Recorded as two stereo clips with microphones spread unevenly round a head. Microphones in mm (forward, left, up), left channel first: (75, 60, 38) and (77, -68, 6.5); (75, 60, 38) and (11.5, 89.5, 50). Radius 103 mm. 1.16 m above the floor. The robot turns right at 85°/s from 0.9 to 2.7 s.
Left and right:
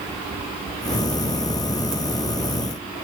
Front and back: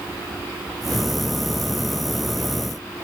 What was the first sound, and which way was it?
Only background noise.